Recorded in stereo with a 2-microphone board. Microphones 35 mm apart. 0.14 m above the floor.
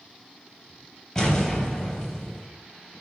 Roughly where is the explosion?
Centre.